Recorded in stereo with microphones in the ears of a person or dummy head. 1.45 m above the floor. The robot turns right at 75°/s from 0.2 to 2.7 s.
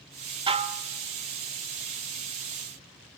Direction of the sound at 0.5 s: 25° right (ahead or behind).